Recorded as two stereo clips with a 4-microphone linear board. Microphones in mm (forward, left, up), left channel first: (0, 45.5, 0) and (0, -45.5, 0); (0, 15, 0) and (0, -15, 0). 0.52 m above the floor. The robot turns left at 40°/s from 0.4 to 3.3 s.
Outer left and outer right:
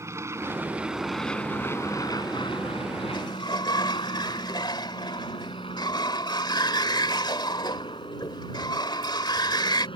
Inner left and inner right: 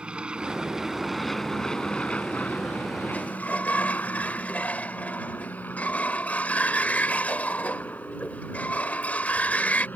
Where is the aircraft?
30° right (ahead or behind); by 10.0 s 65° left (ahead or behind).